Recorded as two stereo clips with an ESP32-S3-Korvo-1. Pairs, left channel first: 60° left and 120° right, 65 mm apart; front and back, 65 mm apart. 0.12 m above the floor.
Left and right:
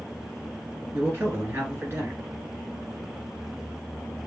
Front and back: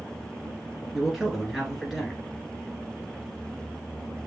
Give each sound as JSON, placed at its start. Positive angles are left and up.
{"t": 0.9, "sound": "a man speaking", "azimuth_deg": -100, "distance_m": 1.8}